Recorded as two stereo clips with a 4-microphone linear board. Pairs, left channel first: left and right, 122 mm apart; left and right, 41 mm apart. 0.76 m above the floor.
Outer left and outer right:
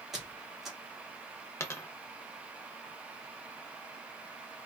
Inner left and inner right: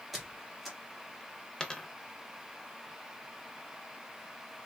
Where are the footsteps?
I don't hear footsteps.